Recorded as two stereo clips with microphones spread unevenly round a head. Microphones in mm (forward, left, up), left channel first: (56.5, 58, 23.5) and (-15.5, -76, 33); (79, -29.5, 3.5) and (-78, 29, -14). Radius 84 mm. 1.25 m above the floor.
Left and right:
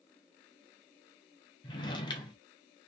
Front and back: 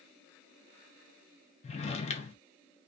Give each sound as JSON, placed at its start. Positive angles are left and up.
{"t": 1.6, "sound": "a drawer", "azimuth_deg": 5, "distance_m": 0.6}